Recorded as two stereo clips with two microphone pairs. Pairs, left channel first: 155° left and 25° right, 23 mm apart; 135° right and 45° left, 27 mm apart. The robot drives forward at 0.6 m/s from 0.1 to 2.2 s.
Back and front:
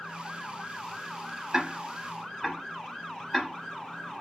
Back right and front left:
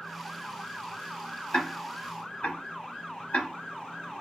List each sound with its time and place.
1.5 s ticking: 90° right, 0.7 m; by 3.5 s 125° right, 0.8 m